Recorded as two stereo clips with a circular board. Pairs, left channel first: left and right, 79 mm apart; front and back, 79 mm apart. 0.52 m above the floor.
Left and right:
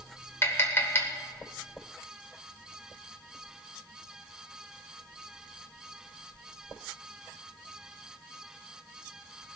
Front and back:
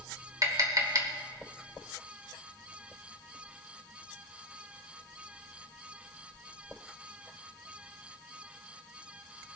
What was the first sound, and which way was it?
Tapping, 145° left.